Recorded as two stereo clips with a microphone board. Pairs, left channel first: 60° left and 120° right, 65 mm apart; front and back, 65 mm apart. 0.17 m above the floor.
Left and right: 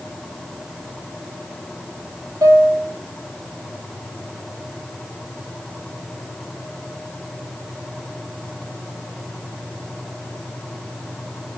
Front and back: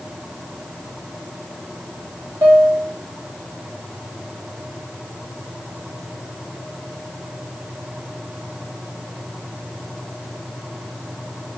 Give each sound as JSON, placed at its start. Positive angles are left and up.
{"t": 2.4, "sound": "a piano", "azimuth_deg": -155, "distance_m": 6.0}